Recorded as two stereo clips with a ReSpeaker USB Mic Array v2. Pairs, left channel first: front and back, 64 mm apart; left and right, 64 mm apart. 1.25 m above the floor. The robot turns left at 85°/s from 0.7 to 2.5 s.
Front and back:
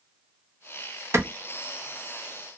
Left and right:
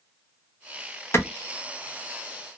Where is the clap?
140° left, 0.8 m; by 1.2 s 130° left, 0.8 m.